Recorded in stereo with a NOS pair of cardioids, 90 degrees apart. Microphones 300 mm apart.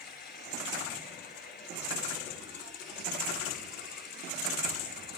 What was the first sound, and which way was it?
Running water, 35° left.